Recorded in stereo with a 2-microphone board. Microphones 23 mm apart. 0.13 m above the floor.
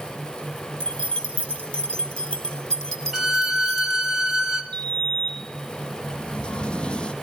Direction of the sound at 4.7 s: 40° left (ahead or behind).